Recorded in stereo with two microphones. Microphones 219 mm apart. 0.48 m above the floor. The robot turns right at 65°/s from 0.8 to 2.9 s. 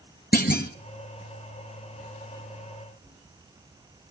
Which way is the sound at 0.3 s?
45° left (ahead or behind).